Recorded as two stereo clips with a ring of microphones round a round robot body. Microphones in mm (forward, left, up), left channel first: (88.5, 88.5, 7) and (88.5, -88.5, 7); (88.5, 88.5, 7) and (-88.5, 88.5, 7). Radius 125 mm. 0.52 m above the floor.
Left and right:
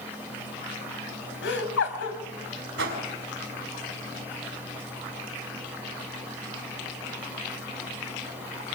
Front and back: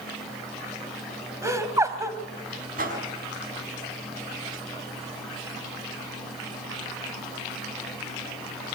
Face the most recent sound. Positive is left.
turn(degrees=-125)